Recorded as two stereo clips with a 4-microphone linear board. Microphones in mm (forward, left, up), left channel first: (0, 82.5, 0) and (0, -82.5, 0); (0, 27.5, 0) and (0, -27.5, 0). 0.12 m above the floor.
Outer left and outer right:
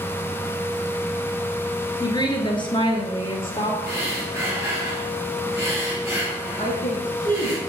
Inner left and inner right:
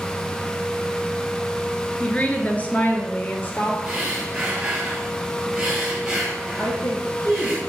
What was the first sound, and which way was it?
A woman speaking, 25° left (ahead or behind).